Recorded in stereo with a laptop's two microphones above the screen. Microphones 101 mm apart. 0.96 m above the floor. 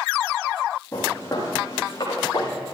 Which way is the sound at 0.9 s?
35° left (ahead or behind).